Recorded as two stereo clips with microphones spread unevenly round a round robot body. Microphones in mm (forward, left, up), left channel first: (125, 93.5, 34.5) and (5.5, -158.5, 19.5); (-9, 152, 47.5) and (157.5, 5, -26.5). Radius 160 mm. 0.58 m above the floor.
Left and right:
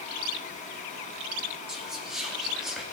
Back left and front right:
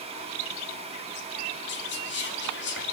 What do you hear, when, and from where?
1.7 s whispering: 165° left, 0.8 m